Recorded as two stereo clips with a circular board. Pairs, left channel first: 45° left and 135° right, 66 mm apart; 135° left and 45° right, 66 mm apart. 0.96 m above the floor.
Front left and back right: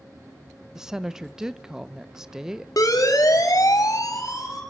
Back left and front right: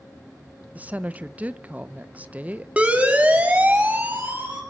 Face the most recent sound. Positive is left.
turn(degrees=15)